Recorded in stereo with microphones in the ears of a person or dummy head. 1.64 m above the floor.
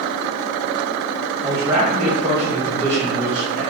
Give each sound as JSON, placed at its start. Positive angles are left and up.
{"t": 1.4, "sound": "a man speaking", "side_deg": -10, "distance_m": 0.8}